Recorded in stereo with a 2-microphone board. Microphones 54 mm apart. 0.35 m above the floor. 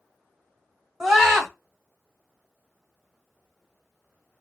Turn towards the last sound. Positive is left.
turn(degrees=-10)  # may be behind; listen again after turning